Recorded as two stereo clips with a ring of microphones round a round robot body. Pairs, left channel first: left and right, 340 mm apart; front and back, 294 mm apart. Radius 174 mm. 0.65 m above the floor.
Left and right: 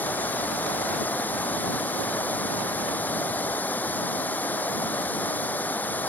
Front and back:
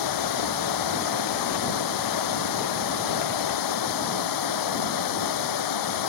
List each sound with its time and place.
0.0 s running water: 5° left